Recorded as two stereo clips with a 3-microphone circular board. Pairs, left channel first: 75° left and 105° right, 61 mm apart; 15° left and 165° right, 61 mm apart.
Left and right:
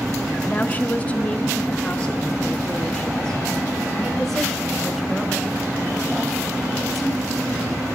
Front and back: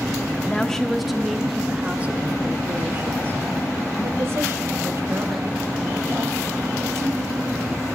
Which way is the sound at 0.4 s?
70° left.